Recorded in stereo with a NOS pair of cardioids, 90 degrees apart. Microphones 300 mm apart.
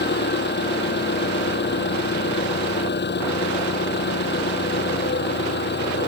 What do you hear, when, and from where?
0.0 s an engine running: 35° left